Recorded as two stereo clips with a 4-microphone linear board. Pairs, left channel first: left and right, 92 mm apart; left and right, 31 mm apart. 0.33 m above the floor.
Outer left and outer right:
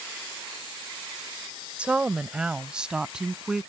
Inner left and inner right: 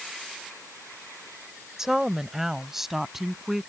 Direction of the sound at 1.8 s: 15° right (ahead or behind).